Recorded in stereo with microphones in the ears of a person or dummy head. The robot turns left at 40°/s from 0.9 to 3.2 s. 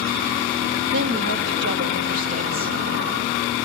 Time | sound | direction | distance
0.9 | a woman speaking | 90° right | 0.6 m